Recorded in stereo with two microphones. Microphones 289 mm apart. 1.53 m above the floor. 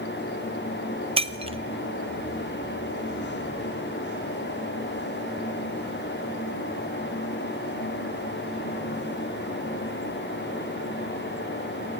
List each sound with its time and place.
1.2 s breaking glass: 20° right (ahead or behind), 0.7 m